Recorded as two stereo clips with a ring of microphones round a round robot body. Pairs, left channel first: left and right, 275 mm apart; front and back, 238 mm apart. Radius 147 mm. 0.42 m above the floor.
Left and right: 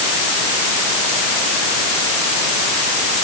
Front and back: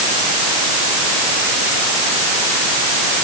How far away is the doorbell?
I don't hear a doorbell.